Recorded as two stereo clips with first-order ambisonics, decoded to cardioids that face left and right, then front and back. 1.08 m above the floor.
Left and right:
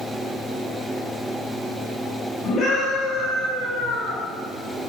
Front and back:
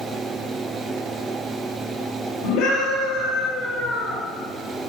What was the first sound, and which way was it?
A scream, 25° left.